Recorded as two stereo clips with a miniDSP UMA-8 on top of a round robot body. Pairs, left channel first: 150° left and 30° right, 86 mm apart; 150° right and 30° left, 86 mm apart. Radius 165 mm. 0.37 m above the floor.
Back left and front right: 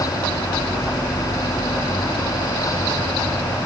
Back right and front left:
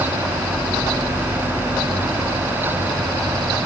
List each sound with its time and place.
Only background noise.